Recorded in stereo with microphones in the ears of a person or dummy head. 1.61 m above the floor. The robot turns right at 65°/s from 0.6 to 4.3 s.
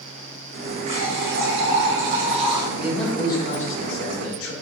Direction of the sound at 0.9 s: 145° right.